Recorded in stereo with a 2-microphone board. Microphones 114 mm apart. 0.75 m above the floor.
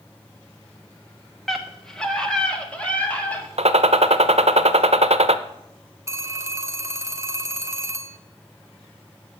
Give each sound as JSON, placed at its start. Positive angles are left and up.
{"t": 1.5, "sound": "a scream", "side_deg": 0, "distance_m": 1.2}
{"t": 3.6, "sound": "a gunshot", "side_deg": -65, "distance_m": 0.7}
{"t": 6.1, "sound": "a phone ringing", "side_deg": -25, "distance_m": 0.8}